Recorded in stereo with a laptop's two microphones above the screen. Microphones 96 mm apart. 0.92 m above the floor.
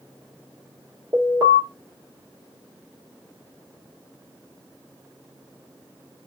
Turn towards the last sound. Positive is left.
turn(degrees=-40)  # may be behind; listen again after turning